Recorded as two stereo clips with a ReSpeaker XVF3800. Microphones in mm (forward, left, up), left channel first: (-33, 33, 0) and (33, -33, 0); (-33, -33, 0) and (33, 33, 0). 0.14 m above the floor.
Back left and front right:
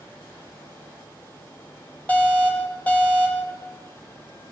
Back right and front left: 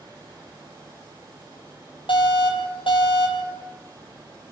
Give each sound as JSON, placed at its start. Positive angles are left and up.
{"t": 2.1, "sound": "an alarm", "azimuth_deg": -150, "distance_m": 5.5}